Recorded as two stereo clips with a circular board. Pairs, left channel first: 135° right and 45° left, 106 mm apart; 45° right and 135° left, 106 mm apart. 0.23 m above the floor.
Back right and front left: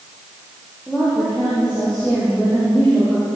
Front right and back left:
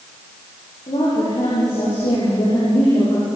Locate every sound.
0.9 s a woman speaking: 50° right, 9.5 m; by 3.3 s 55° right, 10.5 m